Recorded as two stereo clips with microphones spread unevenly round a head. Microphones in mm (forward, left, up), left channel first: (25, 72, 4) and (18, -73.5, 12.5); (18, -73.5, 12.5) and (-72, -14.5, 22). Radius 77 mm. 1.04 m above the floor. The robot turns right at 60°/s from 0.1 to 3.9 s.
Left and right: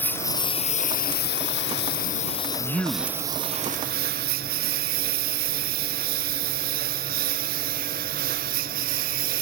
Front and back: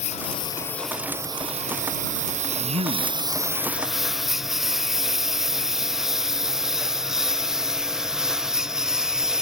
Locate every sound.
0.0 s a lawn mower: 10° left; by 9.4 s 130° right
2.6 s a man speaking: 160° left; by 3.2 s 165° right